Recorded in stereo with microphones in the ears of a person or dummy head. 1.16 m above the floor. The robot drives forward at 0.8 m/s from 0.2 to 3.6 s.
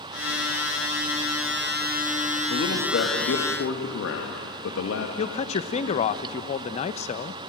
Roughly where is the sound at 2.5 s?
Left.